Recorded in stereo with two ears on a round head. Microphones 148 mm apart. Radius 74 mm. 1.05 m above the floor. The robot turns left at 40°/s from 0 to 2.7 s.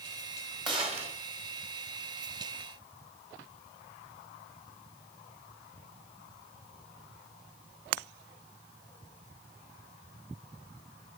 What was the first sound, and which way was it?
A gunshot, 25° right (ahead or behind).